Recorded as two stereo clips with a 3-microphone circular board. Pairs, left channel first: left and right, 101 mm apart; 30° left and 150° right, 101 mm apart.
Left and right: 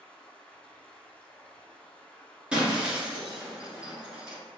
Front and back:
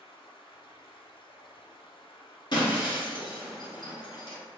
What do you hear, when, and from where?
0.0 s running water: 15° left, 0.8 m
2.5 s breaking glass: 10° right, 1.7 m